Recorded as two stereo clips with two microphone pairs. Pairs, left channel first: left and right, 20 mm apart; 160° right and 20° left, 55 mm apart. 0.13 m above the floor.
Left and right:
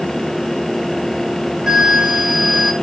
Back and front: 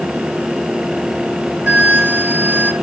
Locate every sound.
1.7 s a flute: 30° right, 0.9 m